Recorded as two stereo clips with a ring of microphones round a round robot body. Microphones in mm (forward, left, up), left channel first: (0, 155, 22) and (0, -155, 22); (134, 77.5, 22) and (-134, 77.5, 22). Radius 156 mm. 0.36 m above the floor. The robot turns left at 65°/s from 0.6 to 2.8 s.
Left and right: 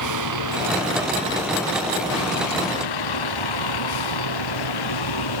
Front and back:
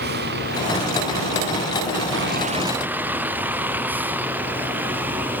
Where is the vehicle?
120° right; by 5.4 s 95° left.